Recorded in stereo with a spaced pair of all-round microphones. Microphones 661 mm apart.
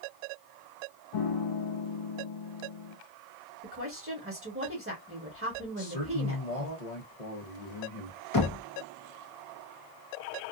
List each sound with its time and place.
1.1 s a piano: 55° left (ahead or behind), 0.6 m
3.6 s a woman speaking: 20° right (ahead or behind), 1.0 m
5.8 s a man speaking: 70° left (ahead or behind), 1.1 m
8.3 s knocking: 35° left (ahead or behind), 0.7 m